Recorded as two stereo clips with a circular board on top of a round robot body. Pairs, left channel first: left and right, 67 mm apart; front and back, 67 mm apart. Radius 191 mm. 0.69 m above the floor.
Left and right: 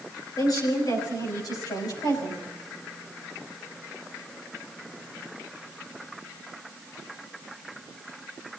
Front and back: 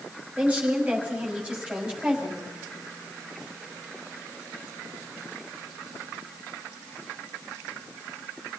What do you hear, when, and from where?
0.4 s a woman speaking: 110° left, 6 m; by 2.4 s 100° left, 7.5 m